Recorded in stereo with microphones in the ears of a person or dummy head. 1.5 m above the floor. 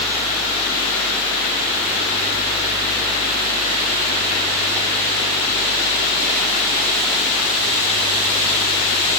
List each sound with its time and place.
Only background noise.